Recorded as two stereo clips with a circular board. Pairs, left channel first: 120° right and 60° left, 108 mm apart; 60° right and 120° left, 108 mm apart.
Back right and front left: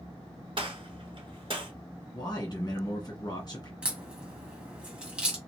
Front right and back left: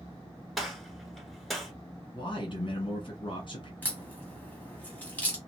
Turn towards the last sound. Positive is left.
turn(degrees=-5)